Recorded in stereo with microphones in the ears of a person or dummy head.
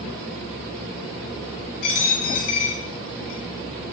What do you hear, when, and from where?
1.8 s a dropped coin: 60° left (ahead or behind), 2 m